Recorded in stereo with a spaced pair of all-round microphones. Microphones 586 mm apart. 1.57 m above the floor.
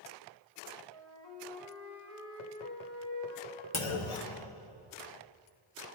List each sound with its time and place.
0.9 s a flute: 45° left (ahead or behind), 2.5 m
3.7 s a clunk: 55° left (ahead or behind), 1.1 m